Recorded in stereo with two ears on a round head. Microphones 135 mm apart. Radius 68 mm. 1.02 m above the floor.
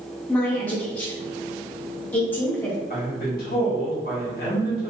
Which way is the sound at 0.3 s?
10° left (ahead or behind).